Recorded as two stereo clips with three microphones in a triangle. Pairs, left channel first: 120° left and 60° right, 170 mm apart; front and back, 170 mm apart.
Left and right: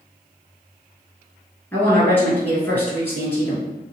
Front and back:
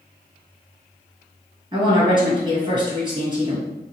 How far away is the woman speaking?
About 1.5 m.